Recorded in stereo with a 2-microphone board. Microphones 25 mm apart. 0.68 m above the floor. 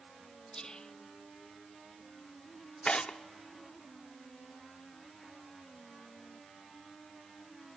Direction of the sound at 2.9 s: 40° left (ahead or behind).